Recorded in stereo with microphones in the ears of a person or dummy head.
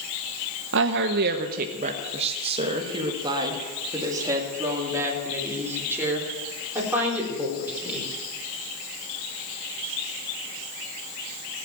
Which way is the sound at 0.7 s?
70° right (ahead or behind).